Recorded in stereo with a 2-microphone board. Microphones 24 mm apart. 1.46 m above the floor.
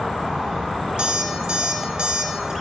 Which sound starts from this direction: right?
An alarm clock, at 1.0 s.